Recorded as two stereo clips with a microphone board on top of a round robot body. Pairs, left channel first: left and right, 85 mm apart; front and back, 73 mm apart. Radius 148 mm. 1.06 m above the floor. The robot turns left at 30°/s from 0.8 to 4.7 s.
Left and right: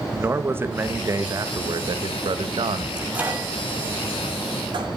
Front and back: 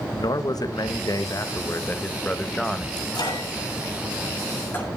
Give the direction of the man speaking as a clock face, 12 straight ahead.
1 o'clock.